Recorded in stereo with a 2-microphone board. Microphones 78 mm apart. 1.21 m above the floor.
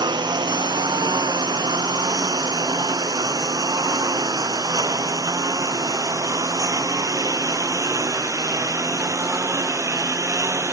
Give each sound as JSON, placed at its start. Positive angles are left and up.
{"t": 0.0, "sound": "a lawn mower", "side_deg": -70}